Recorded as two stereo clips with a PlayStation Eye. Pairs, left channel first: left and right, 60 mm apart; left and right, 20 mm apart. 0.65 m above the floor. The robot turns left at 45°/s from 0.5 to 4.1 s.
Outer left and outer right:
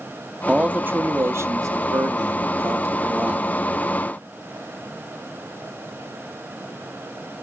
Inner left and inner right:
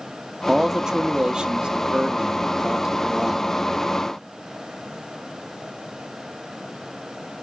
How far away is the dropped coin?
I don't hear a dropped coin.